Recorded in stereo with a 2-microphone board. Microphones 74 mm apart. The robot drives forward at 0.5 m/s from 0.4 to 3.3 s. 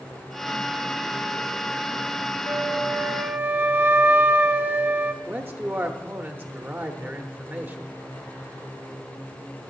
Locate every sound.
2.5 s a flute: 50° right (ahead or behind), 0.5 m; by 5.1 s 30° right (ahead or behind), 0.8 m
5.2 s a man speaking: 30° right (ahead or behind), 0.9 m